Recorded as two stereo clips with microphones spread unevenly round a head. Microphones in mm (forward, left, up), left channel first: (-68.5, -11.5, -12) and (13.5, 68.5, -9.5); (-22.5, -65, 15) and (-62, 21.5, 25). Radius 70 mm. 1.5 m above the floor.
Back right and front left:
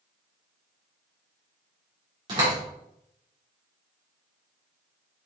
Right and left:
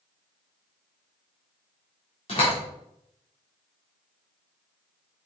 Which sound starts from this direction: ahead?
A door slam, at 2.3 s.